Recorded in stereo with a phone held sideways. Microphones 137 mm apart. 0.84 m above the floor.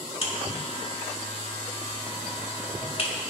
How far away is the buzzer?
About 1.3 m.